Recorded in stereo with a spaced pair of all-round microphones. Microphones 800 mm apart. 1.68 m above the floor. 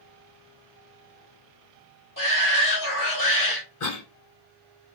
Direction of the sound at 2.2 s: 25° left (ahead or behind).